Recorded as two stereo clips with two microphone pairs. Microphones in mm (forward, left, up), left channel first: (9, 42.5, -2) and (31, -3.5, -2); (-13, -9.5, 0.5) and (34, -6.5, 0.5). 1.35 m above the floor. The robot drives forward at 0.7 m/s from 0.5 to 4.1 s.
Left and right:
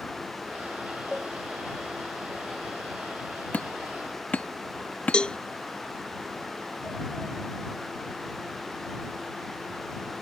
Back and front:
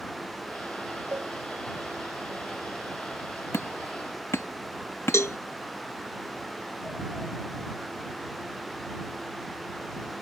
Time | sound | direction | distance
1.1 | a cowbell | 25° left | ?
3.5 | hammering | 175° left | ?
5.1 | a cowbell | 175° right | ?